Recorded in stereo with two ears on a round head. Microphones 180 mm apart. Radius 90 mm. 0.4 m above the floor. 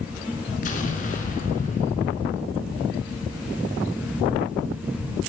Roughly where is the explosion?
Left.